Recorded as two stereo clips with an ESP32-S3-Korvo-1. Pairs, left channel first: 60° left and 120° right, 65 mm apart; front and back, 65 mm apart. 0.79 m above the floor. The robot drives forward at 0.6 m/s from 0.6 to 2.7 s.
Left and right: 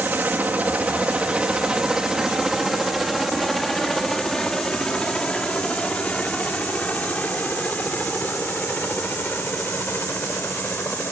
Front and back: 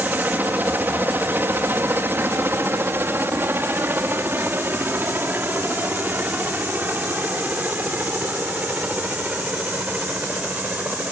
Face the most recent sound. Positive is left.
turn(degrees=115)